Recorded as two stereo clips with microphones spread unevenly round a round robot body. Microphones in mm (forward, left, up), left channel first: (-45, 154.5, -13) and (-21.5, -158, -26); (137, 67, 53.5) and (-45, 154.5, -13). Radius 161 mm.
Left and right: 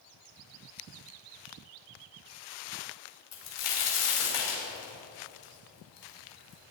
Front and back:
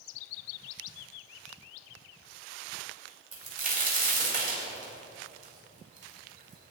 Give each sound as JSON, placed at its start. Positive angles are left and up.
{"t": 3.3, "sound": "a crack", "azimuth_deg": 105, "distance_m": 4.5}